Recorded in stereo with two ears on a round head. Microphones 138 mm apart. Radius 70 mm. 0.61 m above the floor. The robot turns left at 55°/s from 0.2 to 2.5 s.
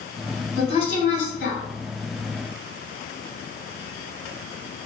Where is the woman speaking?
140° left, 1.9 m; by 1.6 s 85° left, 1.9 m.